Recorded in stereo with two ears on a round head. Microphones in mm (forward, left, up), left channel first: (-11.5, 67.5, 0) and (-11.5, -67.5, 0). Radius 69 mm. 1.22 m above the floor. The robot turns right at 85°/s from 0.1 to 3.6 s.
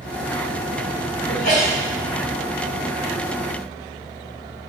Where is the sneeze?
70° left, 1.5 m; by 1.8 s 110° left, 1.5 m.